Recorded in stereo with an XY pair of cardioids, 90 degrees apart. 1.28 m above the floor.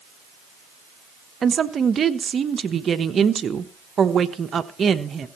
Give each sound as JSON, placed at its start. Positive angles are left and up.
{"t": 1.4, "sound": "a woman speaking", "azimuth_deg": -45, "distance_m": 1.1}